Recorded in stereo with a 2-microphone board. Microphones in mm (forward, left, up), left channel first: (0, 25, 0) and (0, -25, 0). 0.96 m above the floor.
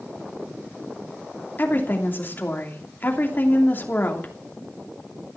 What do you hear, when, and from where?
1.6 s a woman speaking: 40° left (ahead or behind), 2.5 m